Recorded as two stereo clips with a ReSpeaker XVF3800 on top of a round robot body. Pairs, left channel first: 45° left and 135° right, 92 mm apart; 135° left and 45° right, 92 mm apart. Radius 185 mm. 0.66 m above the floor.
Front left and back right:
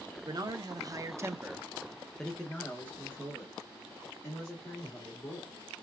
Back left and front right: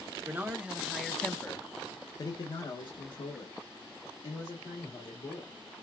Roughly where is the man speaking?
Right.